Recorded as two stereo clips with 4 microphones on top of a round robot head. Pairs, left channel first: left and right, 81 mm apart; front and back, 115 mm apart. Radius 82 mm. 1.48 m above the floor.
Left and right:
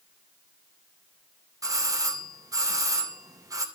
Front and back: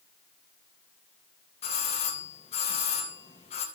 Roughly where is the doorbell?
Ahead right.